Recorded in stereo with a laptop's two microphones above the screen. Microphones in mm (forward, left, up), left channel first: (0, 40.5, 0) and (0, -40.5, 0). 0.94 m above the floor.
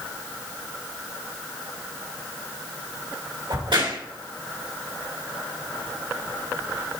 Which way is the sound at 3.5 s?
80° right.